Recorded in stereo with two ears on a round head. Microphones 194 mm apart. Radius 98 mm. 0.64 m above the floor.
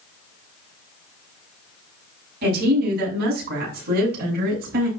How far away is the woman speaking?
About 6 m.